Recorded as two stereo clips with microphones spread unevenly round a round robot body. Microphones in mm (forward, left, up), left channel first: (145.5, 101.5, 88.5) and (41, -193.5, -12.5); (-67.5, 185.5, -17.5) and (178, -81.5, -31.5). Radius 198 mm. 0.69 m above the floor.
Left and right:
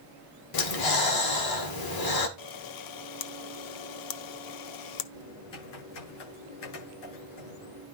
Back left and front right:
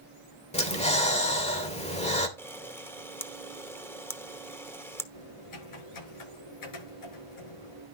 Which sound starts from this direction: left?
Typing on a keyboard, at 5.1 s.